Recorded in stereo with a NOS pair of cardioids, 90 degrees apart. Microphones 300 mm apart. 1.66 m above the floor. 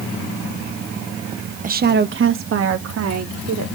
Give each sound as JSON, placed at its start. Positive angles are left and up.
{"t": 1.6, "sound": "a woman speaking", "azimuth_deg": -25, "distance_m": 0.7}